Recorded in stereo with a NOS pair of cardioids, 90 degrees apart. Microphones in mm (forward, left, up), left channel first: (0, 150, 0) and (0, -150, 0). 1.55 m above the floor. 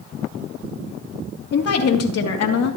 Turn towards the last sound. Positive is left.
turn(degrees=60)